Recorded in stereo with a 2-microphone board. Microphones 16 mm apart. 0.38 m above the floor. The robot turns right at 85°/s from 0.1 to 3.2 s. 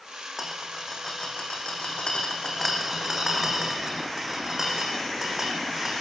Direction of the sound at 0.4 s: 25° right (ahead or behind).